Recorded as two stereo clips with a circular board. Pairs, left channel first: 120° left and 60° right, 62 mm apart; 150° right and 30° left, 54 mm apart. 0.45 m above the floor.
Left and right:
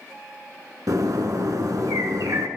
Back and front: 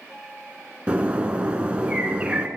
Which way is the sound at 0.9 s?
40° right.